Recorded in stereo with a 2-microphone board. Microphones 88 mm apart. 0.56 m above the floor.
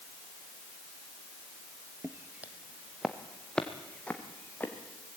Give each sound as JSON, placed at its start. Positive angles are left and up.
{"t": 2.0, "sound": "footsteps", "side_deg": -30, "distance_m": 1.2}